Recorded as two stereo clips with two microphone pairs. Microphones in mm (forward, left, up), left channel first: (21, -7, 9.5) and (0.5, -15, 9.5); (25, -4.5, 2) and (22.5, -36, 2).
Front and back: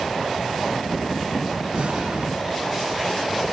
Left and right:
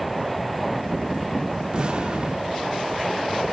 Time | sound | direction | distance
1.7 | an explosion | 155° right | 2.0 m